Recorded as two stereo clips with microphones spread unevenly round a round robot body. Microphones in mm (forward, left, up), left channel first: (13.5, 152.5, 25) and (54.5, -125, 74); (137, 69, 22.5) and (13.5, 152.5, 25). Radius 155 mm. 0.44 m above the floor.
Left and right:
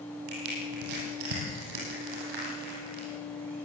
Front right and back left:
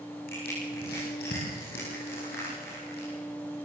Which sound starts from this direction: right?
Crushing, at 0.3 s.